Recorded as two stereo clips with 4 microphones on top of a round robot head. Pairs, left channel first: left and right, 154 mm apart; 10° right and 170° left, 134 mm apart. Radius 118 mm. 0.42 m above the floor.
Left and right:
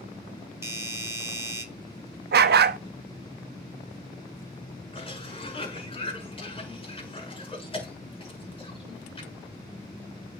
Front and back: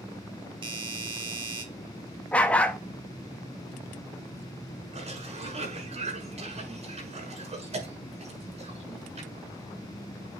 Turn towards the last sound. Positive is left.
turn(degrees=140)